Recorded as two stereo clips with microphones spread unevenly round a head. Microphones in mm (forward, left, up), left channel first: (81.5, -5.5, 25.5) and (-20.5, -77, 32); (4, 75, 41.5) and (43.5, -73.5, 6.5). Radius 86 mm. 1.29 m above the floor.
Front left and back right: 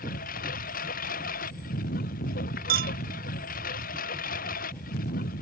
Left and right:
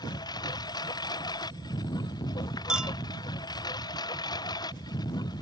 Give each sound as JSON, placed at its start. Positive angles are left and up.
{"t": 0.0, "sound": "a lawn mower", "azimuth_deg": 40}
{"t": 2.7, "sound": "a clink", "azimuth_deg": -165}